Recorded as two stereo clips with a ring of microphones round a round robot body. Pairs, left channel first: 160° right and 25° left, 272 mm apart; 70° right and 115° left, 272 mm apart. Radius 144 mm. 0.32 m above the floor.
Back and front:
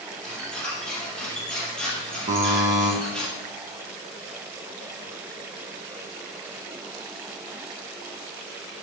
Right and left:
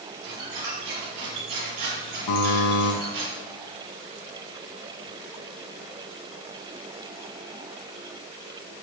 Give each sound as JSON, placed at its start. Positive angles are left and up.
{"t": 0.2, "sound": "a squeak", "azimuth_deg": 115, "distance_m": 4.0}
{"t": 2.3, "sound": "a buzzer", "azimuth_deg": -45, "distance_m": 3.5}